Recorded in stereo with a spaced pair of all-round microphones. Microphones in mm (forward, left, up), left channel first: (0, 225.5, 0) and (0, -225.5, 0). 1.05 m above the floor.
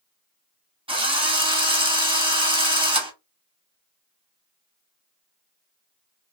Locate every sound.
0.9 s a drill: 10° right (ahead or behind), 0.7 m